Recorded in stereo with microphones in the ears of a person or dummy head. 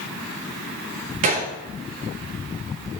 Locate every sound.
1.2 s a gunshot: 35° right (ahead or behind), 1.0 m